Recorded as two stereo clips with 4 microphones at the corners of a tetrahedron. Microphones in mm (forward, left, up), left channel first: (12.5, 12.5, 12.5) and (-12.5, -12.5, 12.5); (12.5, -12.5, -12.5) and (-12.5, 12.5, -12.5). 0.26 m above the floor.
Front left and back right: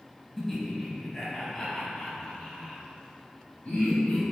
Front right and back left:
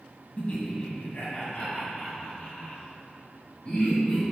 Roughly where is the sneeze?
I don't hear a sneeze.